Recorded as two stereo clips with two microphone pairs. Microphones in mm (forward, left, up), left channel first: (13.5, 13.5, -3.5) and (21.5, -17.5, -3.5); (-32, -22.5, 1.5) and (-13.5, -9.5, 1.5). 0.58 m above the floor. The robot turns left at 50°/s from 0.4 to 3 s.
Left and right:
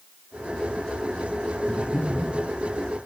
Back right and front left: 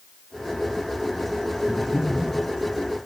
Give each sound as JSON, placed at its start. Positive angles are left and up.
{"t": 1.7, "sound": "breathing", "azimuth_deg": 5, "distance_m": 1.8}